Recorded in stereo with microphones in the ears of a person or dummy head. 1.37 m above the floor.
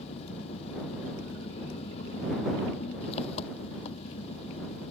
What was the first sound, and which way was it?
An engine running, 35° left (ahead or behind).